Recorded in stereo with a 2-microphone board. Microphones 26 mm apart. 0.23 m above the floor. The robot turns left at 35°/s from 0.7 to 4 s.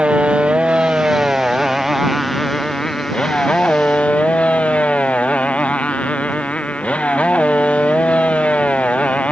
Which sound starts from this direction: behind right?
A motorcycle, at 0.0 s.